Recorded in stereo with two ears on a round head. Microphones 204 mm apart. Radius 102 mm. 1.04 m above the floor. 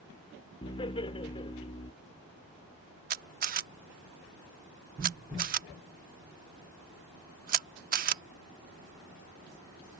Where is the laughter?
20° left (ahead or behind).